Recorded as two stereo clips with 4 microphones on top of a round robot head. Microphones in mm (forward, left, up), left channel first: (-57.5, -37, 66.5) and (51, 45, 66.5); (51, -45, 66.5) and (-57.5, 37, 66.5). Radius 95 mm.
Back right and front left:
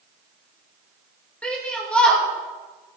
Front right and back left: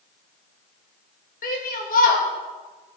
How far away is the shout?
About 3 m.